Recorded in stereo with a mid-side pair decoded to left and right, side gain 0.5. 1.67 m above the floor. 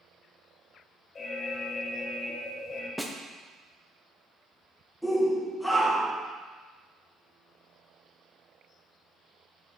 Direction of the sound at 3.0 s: Straight ahead.